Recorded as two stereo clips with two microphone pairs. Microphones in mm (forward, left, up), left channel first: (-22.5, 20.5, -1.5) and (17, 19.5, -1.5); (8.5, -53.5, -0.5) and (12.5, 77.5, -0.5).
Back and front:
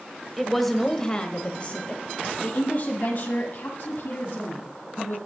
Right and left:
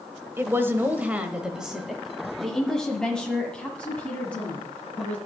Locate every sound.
0.4 s a woman speaking: 80° left, 1.0 m; by 5.2 s 170° right, 2.5 m